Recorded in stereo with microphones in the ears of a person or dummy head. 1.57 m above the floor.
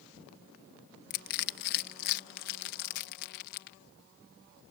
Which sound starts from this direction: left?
Crushing, at 1.1 s.